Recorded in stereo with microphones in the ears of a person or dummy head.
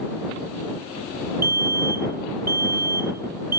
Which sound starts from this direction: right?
A fire alarm, at 1.4 s.